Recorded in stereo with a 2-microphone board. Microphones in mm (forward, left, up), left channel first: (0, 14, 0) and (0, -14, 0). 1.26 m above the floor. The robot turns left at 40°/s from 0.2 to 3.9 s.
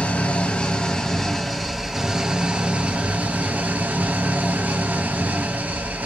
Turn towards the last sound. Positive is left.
turn(degrees=-85)